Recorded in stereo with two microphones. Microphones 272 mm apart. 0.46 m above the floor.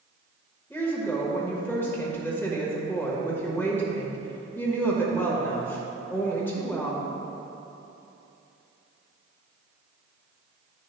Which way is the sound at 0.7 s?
10° left (ahead or behind).